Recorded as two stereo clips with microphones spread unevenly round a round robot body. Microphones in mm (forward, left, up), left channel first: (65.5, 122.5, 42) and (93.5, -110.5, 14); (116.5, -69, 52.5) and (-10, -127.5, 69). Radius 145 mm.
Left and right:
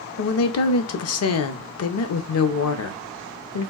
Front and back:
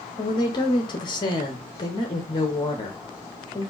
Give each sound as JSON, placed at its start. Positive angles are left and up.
{"t": 0.2, "sound": "a woman speaking", "azimuth_deg": 80, "distance_m": 0.6}